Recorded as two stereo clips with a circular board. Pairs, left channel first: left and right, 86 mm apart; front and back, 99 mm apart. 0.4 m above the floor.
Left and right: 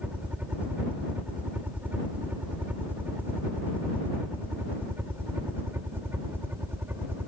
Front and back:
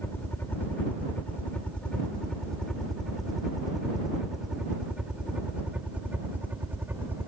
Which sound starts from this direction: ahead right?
A helicopter, at 0.0 s.